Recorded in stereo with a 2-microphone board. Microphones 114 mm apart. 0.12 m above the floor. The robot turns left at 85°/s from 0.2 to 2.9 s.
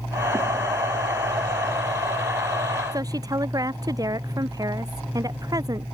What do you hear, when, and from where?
2.9 s a woman speaking: 35° right (ahead or behind)